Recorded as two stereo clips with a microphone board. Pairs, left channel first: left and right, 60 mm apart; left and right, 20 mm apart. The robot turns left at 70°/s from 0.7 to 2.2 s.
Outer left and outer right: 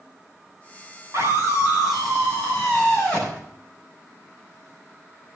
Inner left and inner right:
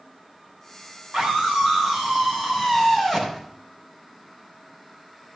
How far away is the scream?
About 7 m.